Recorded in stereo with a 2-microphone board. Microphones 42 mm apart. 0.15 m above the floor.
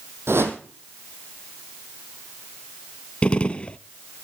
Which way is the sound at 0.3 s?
65° right (ahead or behind).